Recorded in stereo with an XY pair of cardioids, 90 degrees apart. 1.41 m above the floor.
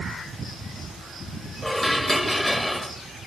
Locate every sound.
1.6 s dishes clattering: 10° left, 1.7 m